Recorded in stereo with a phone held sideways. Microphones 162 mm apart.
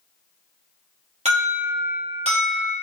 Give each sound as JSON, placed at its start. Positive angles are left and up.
{"t": 1.2, "sound": "an alarm", "side_deg": -45, "distance_m": 1.2}